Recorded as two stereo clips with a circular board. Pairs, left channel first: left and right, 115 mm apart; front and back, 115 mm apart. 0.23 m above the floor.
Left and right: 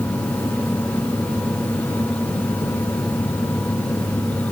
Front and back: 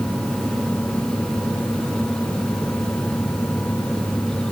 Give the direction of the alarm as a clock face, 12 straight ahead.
No alarm in this recording.